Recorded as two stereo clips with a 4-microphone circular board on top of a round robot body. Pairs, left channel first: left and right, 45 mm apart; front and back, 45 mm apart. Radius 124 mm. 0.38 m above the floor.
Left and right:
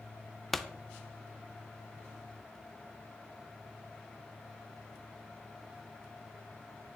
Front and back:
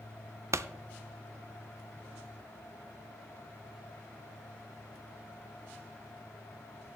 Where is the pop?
170° left, 0.5 m.